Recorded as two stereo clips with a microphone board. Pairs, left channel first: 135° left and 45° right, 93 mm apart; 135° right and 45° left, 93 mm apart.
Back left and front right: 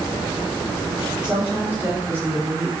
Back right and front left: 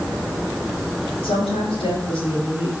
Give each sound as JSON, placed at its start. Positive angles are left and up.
{"t": 1.2, "sound": "a woman speaking", "azimuth_deg": -120, "distance_m": 4.0}